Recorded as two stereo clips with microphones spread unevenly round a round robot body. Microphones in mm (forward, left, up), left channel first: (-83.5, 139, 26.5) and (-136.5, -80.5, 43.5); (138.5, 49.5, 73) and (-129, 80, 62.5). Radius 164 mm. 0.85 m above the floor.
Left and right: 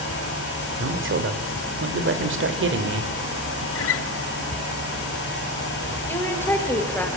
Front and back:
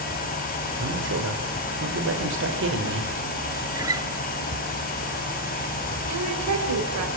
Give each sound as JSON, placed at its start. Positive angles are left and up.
{"t": 0.8, "sound": "a man speaking", "azimuth_deg": -135, "distance_m": 3.0}
{"t": 3.8, "sound": "a guitar", "azimuth_deg": 95, "distance_m": 1.1}
{"t": 6.1, "sound": "a woman speaking", "azimuth_deg": 155, "distance_m": 5.0}